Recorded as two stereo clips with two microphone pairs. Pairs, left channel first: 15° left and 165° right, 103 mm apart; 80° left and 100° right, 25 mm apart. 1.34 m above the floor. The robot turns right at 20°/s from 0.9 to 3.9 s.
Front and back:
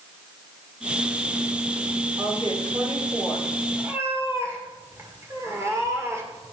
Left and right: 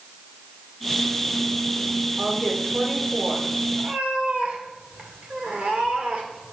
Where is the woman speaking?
125° right, 4.5 m; by 3.5 s 100° right, 4.5 m.